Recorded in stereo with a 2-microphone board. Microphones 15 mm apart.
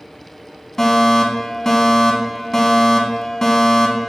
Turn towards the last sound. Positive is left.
turn(degrees=30)  # may be behind; listen again after turning